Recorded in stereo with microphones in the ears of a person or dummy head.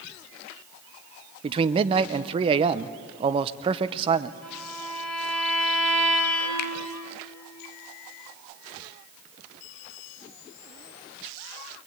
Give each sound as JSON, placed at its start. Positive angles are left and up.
{"t": 1.4, "sound": "a man speaking", "side_deg": -35, "distance_m": 0.7}
{"t": 4.4, "sound": "a violin", "side_deg": 0, "distance_m": 4.0}
{"t": 6.6, "sound": "a finger snap", "side_deg": 55, "distance_m": 0.6}